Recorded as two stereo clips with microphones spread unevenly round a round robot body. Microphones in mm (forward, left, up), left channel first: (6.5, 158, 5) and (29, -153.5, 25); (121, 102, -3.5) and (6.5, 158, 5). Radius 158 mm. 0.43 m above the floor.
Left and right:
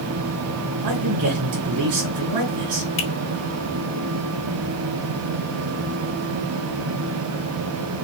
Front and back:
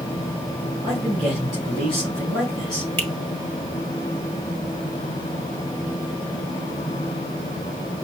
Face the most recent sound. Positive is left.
turn(degrees=45)